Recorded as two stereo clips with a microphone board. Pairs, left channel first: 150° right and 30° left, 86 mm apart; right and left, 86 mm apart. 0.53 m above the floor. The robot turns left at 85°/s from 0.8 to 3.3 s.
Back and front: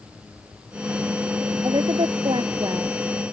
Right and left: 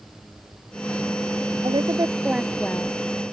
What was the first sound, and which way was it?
A woman speaking, 75° left.